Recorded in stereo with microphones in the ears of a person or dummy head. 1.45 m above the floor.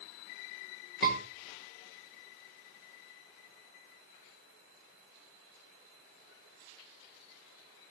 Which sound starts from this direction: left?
A scream, at 1.0 s.